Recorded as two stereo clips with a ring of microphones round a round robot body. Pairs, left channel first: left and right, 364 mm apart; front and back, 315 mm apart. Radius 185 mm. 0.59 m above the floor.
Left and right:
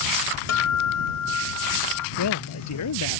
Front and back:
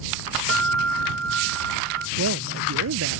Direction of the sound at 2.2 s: 135° left.